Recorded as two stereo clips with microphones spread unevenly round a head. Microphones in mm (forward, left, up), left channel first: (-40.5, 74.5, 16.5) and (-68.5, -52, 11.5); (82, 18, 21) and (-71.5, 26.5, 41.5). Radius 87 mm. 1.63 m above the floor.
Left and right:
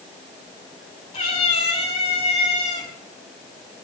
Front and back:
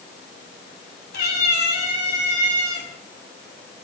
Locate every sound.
1.1 s a cat meowing: 15° left, 6.5 m; by 2.9 s 10° left, 6 m